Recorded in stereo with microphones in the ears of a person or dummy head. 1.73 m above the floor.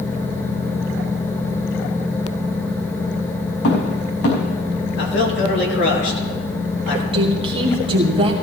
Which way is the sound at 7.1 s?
30° right (ahead or behind).